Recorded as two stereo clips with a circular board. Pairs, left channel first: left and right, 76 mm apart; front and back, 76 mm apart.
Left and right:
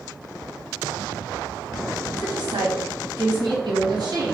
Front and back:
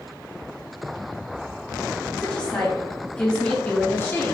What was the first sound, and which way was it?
A woman speaking, 80° right.